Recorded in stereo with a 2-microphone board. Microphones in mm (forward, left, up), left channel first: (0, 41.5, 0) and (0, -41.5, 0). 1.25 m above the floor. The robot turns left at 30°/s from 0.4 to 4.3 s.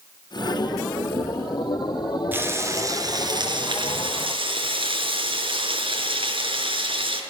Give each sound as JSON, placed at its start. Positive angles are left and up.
{"t": 2.3, "sound": "frying", "azimuth_deg": -20, "distance_m": 5.0}